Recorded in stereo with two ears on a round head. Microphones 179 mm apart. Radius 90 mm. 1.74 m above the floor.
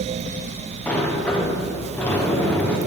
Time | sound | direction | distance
0.9 | a sliding door | 5° left (ahead or behind) | 1.0 m